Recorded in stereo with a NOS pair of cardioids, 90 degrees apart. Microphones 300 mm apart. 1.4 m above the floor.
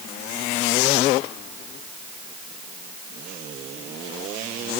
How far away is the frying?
I don't hear frying.